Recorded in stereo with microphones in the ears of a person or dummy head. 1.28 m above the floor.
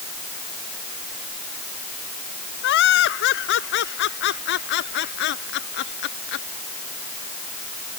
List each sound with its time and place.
2.6 s laughter: 65° left (ahead or behind); by 6.5 s 55° left (ahead or behind)